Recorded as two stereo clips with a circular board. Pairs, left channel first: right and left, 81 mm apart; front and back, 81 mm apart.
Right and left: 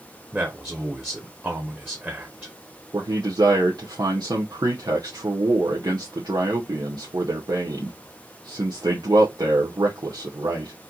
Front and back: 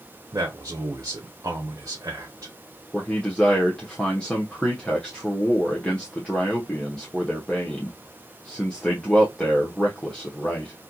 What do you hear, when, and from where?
0.3 s a man speaking: 150° left, 0.9 m
2.9 s a man speaking: 80° left, 0.9 m